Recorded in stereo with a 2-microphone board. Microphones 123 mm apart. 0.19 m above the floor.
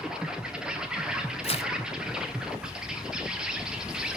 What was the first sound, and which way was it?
An insect, 5° right (ahead or behind).